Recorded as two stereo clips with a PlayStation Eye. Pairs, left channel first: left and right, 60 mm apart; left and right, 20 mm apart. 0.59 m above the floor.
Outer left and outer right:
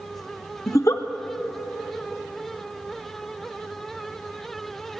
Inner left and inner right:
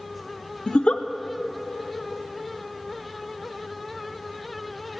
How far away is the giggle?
About 0.5 m.